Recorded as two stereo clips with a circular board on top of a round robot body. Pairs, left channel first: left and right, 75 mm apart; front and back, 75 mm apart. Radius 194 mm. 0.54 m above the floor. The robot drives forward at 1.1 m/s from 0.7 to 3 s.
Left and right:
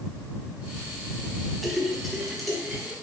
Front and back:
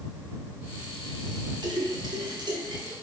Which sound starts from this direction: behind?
A splash, at 1.6 s.